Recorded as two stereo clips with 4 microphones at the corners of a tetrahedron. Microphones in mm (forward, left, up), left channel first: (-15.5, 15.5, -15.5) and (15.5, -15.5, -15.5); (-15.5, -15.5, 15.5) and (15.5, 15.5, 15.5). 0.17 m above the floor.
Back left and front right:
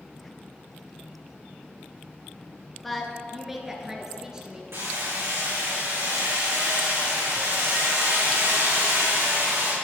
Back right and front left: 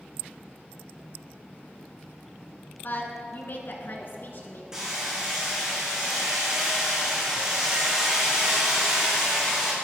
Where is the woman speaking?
135° right, 1.6 m; by 4.6 s 115° right, 2.5 m.